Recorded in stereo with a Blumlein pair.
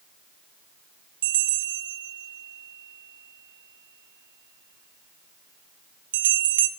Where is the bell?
60° right, 0.7 m.